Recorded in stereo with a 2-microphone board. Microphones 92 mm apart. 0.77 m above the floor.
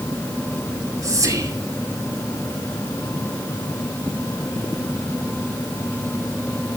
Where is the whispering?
40° right (ahead or behind), 2.5 m.